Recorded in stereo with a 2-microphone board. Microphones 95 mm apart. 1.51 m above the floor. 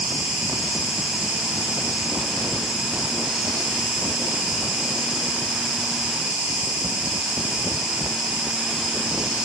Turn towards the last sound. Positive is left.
turn(degrees=-10)  # may be behind; listen again after turning